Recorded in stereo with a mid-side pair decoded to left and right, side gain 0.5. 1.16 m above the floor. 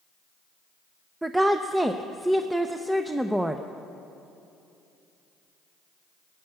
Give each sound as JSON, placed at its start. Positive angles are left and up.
{"t": 1.2, "sound": "a woman speaking", "azimuth_deg": -10, "distance_m": 0.6}